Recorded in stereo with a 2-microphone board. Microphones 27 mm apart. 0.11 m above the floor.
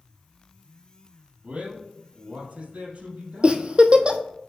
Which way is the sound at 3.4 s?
40° right (ahead or behind).